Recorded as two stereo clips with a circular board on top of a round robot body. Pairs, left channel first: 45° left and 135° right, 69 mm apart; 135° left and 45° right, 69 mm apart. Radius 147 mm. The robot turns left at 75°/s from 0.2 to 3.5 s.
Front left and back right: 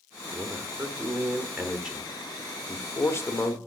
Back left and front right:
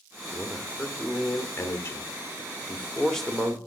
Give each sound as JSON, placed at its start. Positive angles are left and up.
{"t": 0.3, "sound": "a man speaking", "azimuth_deg": -95, "distance_m": 1.4}